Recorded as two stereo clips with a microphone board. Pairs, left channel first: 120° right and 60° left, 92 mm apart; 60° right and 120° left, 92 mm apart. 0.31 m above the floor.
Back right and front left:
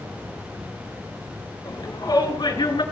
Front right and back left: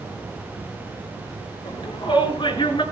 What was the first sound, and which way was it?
A shout, 80° right.